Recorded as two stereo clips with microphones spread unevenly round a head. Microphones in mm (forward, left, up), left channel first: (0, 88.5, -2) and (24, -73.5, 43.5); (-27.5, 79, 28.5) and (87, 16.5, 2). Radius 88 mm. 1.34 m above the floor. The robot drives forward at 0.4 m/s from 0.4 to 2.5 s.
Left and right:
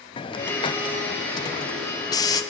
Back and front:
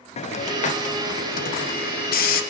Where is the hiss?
125° left, 0.7 m; by 2.4 s 160° left, 1.2 m.